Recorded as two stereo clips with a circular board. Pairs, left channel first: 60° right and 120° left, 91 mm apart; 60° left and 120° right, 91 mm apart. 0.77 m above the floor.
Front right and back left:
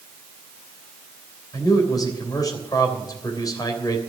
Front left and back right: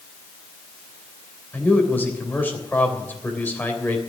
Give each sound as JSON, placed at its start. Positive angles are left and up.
{"t": 1.5, "sound": "a man speaking", "azimuth_deg": -10, "distance_m": 3.0}